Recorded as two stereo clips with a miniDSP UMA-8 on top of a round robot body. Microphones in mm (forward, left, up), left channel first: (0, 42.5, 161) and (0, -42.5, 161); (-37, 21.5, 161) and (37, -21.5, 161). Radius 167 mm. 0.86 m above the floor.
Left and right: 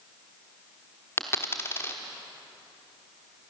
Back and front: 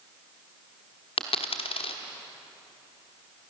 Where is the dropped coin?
155° left, 1.1 m.